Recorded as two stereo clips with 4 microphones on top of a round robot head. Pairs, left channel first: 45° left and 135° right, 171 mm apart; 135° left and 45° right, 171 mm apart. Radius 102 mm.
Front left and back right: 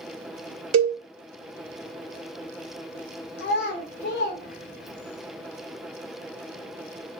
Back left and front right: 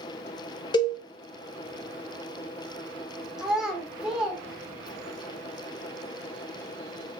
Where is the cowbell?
155° right, 0.6 m.